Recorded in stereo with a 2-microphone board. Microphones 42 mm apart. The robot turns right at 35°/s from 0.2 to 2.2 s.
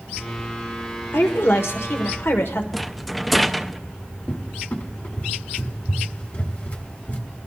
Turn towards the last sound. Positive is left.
turn(degrees=50)  # may be behind; listen again after turning